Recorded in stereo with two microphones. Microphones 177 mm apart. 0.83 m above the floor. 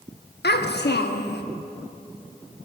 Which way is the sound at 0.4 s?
70° left (ahead or behind).